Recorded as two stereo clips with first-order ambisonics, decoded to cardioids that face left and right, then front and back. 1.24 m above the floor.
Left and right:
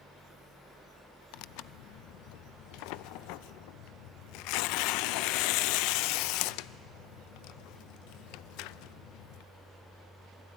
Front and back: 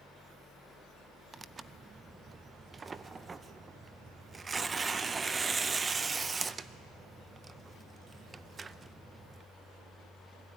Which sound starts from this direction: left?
Tearing paper, at 1.3 s.